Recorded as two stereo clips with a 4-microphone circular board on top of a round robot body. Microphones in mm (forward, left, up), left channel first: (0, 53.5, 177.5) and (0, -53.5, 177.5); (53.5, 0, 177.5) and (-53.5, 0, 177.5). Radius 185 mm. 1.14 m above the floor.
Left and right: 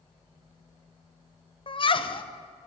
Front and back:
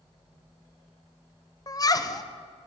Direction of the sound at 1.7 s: 55° left.